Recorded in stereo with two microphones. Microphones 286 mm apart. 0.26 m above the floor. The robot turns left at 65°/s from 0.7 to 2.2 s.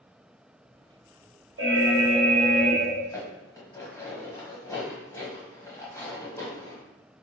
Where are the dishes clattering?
10° left (ahead or behind), 1.0 m.